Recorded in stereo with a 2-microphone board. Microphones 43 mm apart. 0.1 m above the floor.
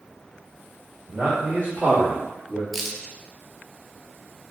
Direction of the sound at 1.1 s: 45° right (ahead or behind).